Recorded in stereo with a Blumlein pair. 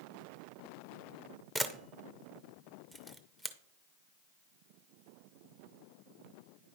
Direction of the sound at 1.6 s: 5° right.